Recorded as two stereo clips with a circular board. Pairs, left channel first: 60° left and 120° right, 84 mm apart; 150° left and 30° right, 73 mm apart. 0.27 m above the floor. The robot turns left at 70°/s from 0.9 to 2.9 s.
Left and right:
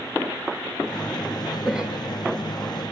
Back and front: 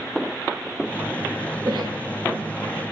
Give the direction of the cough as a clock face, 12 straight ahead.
1 o'clock.